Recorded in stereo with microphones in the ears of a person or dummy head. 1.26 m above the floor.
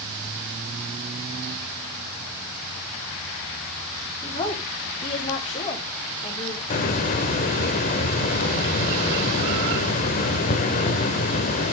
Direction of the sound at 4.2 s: 35° left (ahead or behind).